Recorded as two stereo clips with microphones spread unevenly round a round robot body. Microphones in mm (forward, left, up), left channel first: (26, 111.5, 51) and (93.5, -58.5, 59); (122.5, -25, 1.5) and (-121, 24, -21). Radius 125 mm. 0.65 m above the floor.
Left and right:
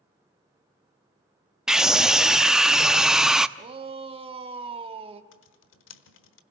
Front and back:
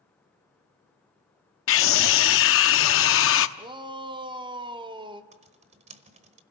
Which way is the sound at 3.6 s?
125° right.